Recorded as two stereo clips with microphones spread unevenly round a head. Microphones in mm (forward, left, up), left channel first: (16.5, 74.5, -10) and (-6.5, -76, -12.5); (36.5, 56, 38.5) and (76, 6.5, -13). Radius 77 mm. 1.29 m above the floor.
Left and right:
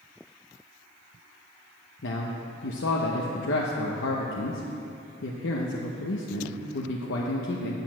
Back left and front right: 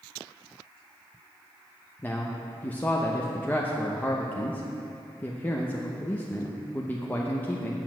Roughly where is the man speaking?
Left.